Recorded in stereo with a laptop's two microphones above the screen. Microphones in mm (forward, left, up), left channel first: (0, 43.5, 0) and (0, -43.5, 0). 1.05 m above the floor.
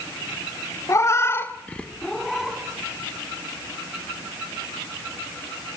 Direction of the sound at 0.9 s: 35° left (ahead or behind).